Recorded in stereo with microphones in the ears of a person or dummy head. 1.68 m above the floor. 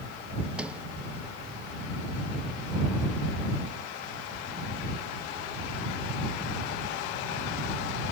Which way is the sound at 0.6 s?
5° right (ahead or behind).